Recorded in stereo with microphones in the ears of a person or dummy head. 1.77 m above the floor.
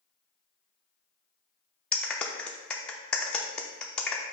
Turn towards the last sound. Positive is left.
turn(degrees=0)  # may be behind; listen again after turning